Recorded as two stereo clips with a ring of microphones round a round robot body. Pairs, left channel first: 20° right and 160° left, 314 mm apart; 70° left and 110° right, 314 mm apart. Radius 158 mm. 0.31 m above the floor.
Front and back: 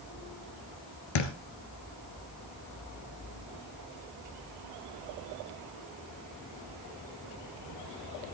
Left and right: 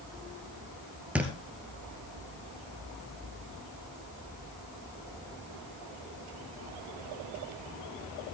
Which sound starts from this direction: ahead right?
A thud, at 1.1 s.